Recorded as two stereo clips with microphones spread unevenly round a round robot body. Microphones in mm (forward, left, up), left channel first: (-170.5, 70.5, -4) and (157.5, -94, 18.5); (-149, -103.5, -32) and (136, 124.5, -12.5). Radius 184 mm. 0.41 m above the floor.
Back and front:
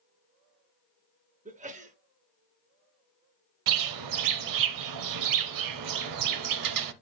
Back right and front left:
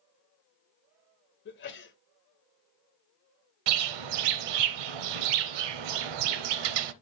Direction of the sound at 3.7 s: 15° left.